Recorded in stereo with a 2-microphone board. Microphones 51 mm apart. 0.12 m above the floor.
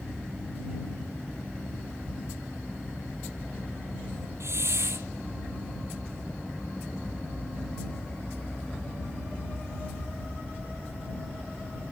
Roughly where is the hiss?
Right.